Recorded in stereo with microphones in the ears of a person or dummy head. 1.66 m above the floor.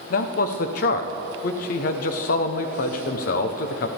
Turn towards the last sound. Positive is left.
turn(degrees=50)  # may be behind; listen again after turning